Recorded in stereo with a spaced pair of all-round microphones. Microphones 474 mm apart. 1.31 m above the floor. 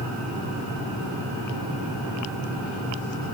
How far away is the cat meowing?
No cat meowing in this recording.